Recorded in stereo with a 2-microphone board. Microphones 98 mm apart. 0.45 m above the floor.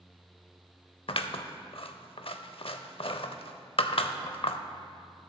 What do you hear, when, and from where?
1.1 s scissors: 75° left (ahead or behind), 0.6 m